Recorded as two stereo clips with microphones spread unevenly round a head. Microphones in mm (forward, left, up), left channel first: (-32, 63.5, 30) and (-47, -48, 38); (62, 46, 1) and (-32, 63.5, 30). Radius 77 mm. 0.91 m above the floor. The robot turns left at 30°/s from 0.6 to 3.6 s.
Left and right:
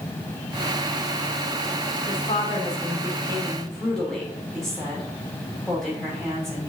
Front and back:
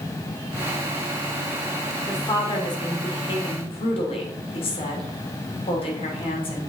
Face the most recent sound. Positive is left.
turn(degrees=-5)